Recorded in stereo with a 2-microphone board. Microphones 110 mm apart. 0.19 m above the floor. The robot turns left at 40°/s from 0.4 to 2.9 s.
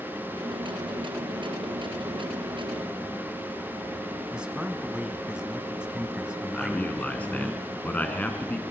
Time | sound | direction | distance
4.3 | a man speaking | 10° right (ahead or behind) | 1.2 m
6.5 | a man speaking | 15° left (ahead or behind) | 2 m